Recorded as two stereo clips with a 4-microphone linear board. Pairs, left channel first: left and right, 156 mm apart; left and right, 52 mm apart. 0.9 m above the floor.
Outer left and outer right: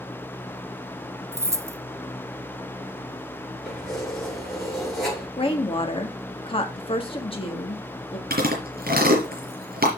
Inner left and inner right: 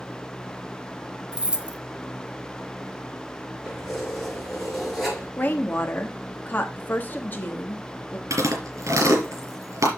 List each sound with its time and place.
1.3 s keys jangling: 20° right (ahead or behind), 0.7 m
3.6 s keys jangling: centre (ahead or behind), 6 m
5.4 s a woman speaking: 35° left (ahead or behind), 1.7 m
8.3 s chewing: 75° right (ahead or behind), 3.5 m